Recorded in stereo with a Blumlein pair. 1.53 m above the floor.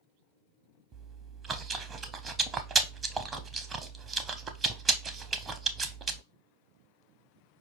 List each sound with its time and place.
0.9 s chewing: 20° right, 0.6 m